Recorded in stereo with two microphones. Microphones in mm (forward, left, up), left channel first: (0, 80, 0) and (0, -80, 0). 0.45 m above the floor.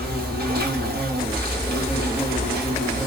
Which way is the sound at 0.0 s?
75° right (ahead or behind).